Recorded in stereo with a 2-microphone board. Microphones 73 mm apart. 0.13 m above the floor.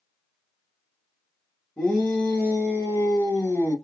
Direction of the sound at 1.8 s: 20° left (ahead or behind).